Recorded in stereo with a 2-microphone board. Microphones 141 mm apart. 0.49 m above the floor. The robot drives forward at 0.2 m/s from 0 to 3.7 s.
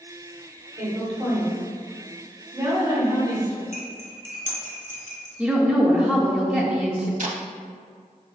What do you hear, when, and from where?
0.8 s a woman speaking: 25° right (ahead or behind), 1.3 m; by 3.6 s 30° right (ahead or behind), 1.0 m
3.7 s cutlery clinking: 75° left (ahead or behind), 1.4 m
5.4 s a woman speaking: 10° right (ahead or behind), 0.7 m
7.2 s tape being pulled: 70° right (ahead or behind), 0.5 m